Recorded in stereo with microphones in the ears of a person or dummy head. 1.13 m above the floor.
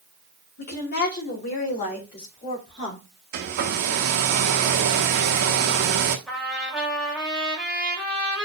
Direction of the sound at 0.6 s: 55° left (ahead or behind).